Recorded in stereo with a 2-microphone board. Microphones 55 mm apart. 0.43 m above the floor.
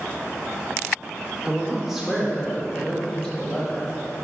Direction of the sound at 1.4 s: 15° right (ahead or behind).